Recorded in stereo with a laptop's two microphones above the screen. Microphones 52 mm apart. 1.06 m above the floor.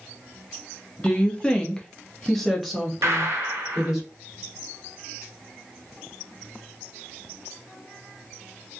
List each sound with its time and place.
1.0 s a woman speaking: 20° left (ahead or behind), 0.7 m; by 4.0 s 10° right (ahead or behind), 1.2 m
3.0 s a gunshot: 65° right (ahead or behind), 0.6 m